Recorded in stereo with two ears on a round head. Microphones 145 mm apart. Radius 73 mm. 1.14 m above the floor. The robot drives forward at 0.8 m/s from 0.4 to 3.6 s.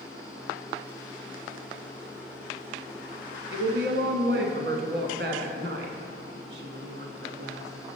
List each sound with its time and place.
3.5 s a woman speaking: 70° right (ahead or behind), 1.1 m